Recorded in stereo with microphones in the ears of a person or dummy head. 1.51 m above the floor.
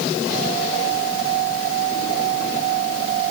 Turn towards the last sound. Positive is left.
No sound to turn to.